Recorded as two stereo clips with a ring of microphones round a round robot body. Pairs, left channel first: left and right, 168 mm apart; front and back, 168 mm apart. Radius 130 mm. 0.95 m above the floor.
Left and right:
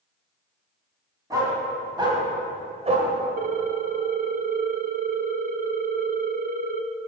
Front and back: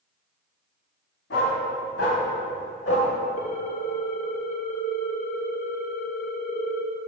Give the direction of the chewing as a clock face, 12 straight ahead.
I don't hear chewing.